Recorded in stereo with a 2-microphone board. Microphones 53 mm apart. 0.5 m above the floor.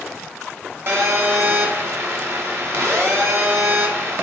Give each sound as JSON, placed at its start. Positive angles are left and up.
{"t": 0.9, "sound": "a phone buzzing", "side_deg": -55, "distance_m": 0.7}